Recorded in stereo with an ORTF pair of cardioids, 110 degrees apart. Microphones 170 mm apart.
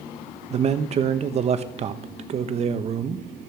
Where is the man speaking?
40° right, 1.0 m.